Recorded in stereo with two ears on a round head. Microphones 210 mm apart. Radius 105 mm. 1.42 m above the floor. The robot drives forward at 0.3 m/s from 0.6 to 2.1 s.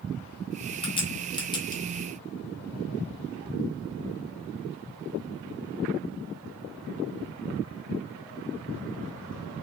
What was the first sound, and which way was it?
A crack, 20° left (ahead or behind).